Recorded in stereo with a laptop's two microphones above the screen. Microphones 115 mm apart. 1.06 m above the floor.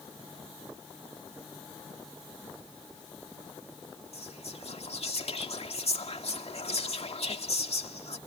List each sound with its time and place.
4.1 s whispering: 65° left (ahead or behind)